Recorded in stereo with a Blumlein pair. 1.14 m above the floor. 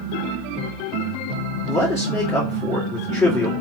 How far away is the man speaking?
About 2.5 m.